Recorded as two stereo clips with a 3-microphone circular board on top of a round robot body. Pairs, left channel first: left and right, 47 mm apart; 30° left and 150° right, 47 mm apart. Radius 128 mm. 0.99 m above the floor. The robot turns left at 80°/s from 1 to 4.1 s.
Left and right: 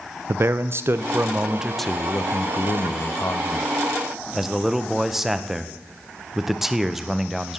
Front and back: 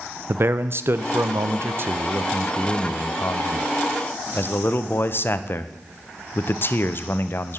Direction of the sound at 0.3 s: 120° right.